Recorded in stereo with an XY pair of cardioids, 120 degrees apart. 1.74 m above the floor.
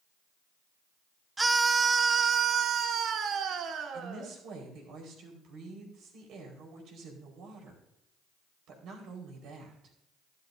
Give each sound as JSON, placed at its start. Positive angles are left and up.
{"t": 1.4, "sound": "a scream", "azimuth_deg": -15, "distance_m": 0.9}
{"t": 3.9, "sound": "a woman speaking", "azimuth_deg": -65, "distance_m": 4.5}